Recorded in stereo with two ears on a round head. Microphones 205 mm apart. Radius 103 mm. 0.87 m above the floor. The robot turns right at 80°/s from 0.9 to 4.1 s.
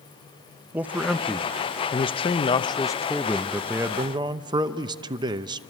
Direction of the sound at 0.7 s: 5° right (ahead or behind).